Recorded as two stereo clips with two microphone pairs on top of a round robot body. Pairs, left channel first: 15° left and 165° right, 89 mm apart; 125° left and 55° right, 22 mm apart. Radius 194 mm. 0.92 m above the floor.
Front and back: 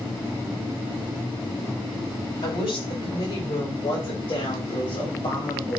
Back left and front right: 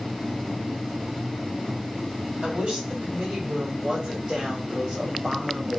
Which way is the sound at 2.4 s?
15° right.